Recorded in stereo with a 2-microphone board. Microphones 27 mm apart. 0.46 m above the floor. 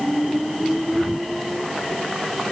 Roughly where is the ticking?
No ticking in this recording.